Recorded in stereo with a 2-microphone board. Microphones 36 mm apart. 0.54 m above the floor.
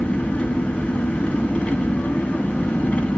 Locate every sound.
0.0 s an engine running: 30° left (ahead or behind), 2.5 m